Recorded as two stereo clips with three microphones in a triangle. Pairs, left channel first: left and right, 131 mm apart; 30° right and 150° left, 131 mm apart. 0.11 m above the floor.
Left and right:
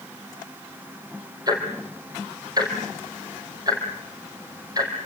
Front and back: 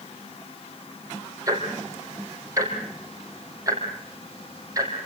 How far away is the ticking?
About 4 m.